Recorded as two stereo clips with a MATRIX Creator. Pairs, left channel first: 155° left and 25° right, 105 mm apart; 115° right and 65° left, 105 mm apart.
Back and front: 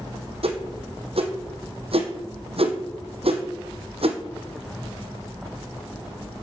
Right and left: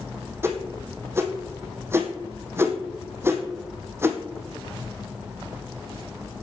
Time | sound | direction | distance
0.4 | a whoosh | straight ahead | 1.7 m